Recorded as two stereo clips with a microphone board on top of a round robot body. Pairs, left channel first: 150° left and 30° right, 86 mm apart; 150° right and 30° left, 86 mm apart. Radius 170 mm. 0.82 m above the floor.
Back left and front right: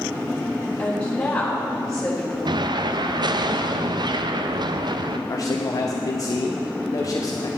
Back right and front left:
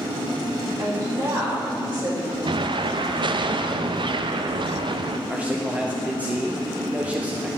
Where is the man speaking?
105° left, 1.1 m.